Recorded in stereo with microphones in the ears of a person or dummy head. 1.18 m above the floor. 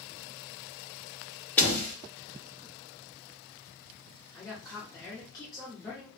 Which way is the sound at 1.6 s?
10° left (ahead or behind).